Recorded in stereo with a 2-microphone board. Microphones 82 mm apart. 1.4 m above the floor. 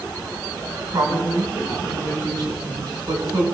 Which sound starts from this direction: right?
A man speaking, at 0.9 s.